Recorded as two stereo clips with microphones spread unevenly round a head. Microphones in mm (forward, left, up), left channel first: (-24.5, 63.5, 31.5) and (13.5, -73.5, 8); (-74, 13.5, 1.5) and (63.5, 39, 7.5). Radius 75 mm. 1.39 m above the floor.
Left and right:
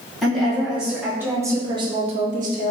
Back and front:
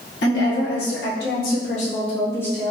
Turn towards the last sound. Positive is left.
turn(degrees=-80)